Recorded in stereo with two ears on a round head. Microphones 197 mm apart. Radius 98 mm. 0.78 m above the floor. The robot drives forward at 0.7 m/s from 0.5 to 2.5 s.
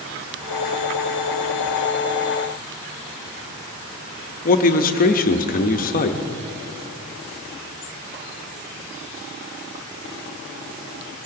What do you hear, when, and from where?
4.5 s a man speaking: 40° left (ahead or behind), 0.8 m